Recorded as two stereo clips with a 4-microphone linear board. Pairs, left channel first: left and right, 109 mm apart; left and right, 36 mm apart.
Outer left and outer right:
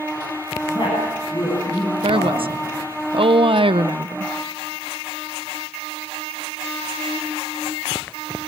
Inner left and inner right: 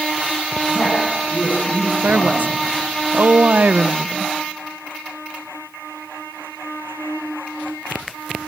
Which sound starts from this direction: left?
A woman speaking, at 0.7 s.